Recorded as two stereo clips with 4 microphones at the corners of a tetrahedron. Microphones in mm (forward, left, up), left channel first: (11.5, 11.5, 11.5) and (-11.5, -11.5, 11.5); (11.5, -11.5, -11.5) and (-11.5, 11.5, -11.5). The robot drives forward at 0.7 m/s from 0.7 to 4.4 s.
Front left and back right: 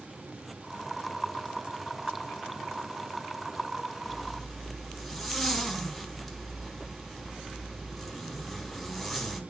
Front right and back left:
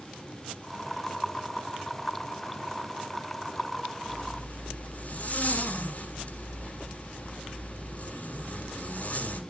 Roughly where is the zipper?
Ahead right.